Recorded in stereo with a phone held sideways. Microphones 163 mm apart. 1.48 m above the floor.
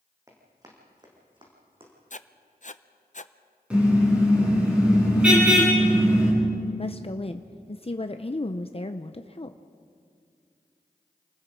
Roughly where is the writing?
Left.